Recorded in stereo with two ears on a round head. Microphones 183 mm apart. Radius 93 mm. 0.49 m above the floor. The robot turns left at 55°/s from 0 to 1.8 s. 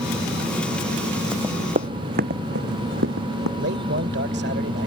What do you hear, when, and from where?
1.3 s running footsteps: 5° right (ahead or behind); by 3.5 s 70° right (ahead or behind)
3.6 s a man speaking: 55° right (ahead or behind)